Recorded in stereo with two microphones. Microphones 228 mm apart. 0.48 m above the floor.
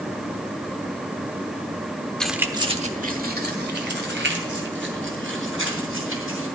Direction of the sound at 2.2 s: 5° left (ahead or behind).